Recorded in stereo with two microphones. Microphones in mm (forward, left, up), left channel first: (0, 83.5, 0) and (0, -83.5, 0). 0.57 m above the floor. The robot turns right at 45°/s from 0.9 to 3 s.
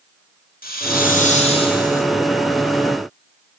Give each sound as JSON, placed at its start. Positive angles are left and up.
{"t": 0.6, "sound": "a hiss", "azimuth_deg": 115, "distance_m": 2.0}